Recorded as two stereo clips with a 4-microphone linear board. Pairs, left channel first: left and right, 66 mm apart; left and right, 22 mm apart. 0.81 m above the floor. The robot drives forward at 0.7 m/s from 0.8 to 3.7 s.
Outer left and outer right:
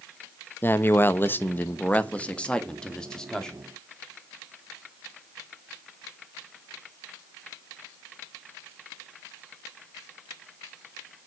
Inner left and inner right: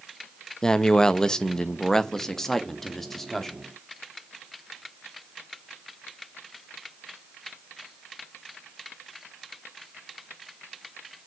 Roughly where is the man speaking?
Left.